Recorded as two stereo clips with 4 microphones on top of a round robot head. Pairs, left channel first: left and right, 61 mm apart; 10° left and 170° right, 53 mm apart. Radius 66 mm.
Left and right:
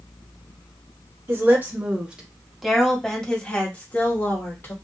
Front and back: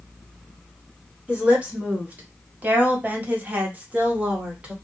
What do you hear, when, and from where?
1.3 s a woman speaking: 115° right, 1.4 m; by 4.7 s 130° left, 1.9 m